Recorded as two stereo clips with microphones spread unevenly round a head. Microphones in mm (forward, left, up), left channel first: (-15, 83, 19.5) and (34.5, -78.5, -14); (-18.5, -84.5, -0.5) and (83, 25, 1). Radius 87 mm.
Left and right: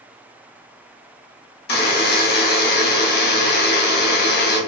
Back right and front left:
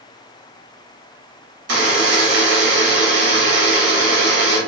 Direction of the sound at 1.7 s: 75° left.